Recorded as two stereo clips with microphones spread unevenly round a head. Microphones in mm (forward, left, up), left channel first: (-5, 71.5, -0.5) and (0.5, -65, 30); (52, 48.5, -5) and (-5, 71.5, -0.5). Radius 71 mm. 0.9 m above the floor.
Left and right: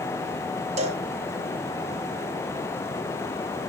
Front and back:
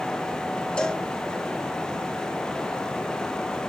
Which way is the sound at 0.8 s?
75° right.